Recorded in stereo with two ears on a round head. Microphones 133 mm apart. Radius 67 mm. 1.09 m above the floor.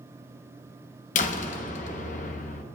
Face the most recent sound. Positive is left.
turn(degrees=50)  # may be behind; listen again after turning